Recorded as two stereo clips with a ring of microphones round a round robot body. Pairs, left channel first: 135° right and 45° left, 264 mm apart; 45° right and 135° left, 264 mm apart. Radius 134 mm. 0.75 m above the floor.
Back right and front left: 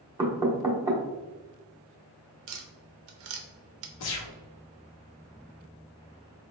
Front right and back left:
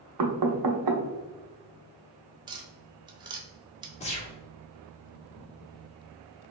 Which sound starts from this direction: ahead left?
Tapping, at 2.5 s.